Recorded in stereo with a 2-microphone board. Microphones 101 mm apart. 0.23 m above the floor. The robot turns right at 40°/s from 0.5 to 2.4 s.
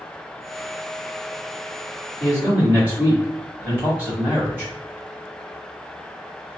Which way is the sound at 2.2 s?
15° right (ahead or behind).